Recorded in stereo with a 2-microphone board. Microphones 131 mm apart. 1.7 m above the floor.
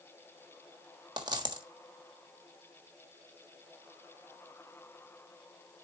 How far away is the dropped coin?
About 1.4 m.